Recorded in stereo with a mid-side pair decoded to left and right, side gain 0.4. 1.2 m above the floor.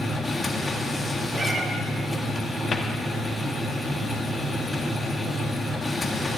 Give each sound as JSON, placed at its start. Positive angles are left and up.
{"t": 0.0, "sound": "a machine running", "azimuth_deg": 20, "distance_m": 1.5}
{"t": 1.3, "sound": "a cat meowing", "azimuth_deg": -50, "distance_m": 1.2}
{"t": 2.7, "sound": "a cupboard door", "azimuth_deg": 45, "distance_m": 1.3}